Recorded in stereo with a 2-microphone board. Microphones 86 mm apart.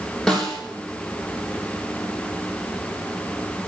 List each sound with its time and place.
0.3 s a snare drum: 10° left (ahead or behind), 3.5 m